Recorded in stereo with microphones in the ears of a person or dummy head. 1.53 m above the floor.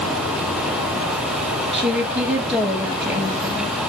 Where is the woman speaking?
15° right (ahead or behind), 2 m.